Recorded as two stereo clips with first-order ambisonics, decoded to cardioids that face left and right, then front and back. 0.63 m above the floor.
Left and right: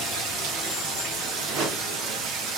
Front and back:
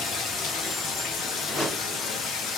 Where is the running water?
50° right, 0.8 m.